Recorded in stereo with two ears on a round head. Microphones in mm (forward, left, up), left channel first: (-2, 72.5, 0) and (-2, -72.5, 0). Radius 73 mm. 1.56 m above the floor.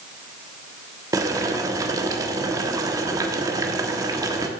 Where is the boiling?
20° right (ahead or behind), 1.3 m.